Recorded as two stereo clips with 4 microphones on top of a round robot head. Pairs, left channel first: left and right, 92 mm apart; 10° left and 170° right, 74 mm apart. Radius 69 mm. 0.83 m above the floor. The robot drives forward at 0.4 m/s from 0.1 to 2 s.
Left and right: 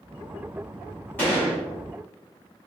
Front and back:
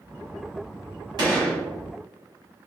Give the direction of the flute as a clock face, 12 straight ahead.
No flute in this recording.